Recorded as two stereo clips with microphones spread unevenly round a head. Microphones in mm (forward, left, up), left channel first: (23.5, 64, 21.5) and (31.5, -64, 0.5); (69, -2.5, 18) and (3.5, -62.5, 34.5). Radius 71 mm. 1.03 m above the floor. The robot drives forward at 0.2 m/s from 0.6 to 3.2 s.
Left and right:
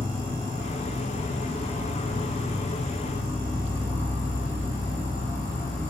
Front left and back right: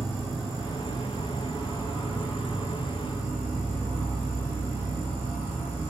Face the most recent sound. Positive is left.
turn(degrees=155)